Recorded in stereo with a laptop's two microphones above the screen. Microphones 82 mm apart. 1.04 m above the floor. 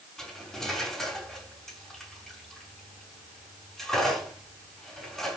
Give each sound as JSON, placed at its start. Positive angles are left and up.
{"t": 0.2, "sound": "cutlery clinking", "side_deg": 5, "distance_m": 5.5}